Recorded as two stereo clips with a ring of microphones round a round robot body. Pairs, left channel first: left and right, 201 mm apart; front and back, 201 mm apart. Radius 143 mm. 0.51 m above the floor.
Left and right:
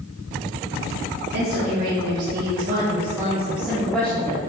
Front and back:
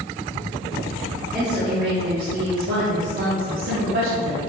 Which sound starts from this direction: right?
A woman speaking, at 1.3 s.